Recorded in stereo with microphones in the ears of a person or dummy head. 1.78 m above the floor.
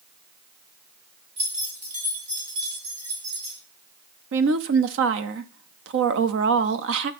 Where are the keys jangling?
35° right (ahead or behind), 1.8 m; by 3.6 s 60° right (ahead or behind), 3.5 m.